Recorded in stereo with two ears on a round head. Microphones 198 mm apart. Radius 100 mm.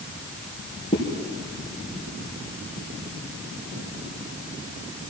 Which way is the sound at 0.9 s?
20° left (ahead or behind).